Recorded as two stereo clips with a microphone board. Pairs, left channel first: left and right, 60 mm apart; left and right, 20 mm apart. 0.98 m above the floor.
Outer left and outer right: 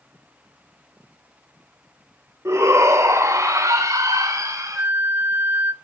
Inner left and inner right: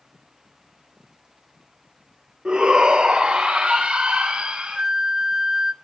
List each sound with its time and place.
2.5 s a shout: 50° right (ahead or behind), 3 m; by 4.8 s 65° right (ahead or behind), 3.5 m
4.8 s a flute: 30° right (ahead or behind), 0.7 m